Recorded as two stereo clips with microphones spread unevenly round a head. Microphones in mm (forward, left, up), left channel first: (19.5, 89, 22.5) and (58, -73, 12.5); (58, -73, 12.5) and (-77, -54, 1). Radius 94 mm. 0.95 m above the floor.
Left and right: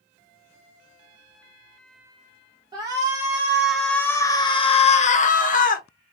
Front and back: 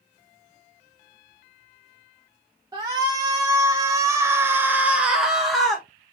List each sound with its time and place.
2.7 s a shout: 135° right, 1.2 m; by 5.9 s 85° left, 1.2 m